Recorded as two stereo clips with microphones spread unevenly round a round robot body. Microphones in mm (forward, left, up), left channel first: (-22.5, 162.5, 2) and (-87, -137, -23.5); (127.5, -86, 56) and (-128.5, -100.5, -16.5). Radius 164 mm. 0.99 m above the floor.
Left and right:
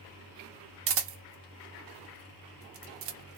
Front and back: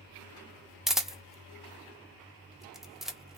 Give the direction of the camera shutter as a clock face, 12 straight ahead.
4 o'clock.